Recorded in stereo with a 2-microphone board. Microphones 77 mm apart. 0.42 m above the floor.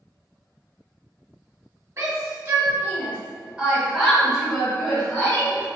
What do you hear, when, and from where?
2.0 s a shout: 40° right (ahead or behind), 1.9 m; by 5.7 s 20° left (ahead or behind), 2.5 m